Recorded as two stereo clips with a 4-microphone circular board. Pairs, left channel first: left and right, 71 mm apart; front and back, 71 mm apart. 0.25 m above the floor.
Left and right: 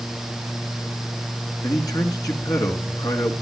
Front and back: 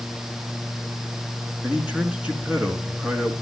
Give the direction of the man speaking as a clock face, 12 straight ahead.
8 o'clock.